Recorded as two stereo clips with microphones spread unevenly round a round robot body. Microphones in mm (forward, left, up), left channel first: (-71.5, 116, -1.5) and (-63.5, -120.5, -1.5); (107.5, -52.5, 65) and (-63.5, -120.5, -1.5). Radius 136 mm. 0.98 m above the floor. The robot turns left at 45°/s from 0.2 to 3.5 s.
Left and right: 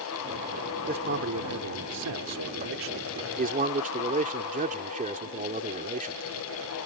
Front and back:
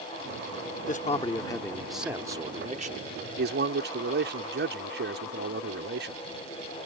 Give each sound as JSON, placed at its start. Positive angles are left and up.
{"t": 0.9, "sound": "a man speaking", "azimuth_deg": -25}